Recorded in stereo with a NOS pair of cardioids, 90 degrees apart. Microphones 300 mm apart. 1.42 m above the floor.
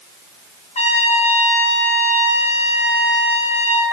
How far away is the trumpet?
About 4.5 m.